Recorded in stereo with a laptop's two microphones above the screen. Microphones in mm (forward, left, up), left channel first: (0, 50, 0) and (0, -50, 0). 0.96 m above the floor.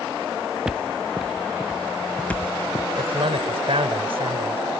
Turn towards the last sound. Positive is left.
turn(degrees=-70)  # may be behind; listen again after turning